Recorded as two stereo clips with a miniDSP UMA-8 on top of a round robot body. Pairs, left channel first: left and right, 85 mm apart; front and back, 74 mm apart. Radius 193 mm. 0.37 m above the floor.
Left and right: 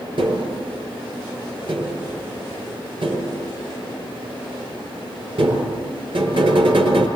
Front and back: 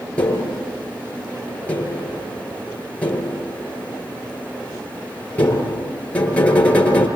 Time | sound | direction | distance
0.2 | tapping | 75° right | 7 m